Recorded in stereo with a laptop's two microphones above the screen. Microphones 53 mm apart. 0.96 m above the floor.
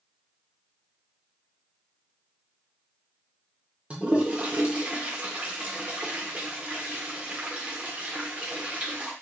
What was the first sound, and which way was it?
A toilet flushing, 25° right (ahead or behind).